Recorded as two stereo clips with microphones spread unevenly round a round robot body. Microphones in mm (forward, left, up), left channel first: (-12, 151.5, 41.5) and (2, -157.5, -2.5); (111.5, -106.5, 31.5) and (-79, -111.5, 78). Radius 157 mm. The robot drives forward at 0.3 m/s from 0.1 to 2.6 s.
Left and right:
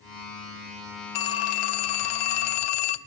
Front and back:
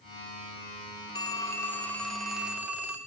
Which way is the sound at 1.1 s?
75° left.